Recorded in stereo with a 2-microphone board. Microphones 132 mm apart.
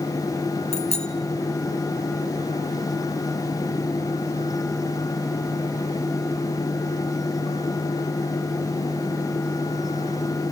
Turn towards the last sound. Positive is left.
turn(degrees=60)  # may be behind; listen again after turning